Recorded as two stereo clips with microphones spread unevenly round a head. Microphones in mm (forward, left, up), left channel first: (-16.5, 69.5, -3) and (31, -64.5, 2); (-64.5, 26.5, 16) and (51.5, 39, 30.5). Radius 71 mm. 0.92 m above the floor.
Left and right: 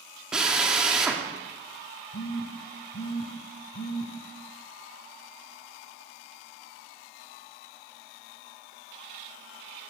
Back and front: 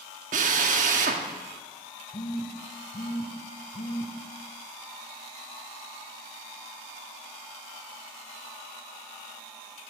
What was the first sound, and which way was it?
A drill, 15° left.